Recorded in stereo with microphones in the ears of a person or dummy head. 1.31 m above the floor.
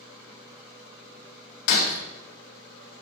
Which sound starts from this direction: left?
Breaking glass, at 1.7 s.